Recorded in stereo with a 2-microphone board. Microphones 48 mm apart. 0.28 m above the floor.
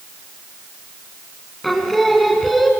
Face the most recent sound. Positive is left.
turn(degrees=5)  # may be behind; listen again after turning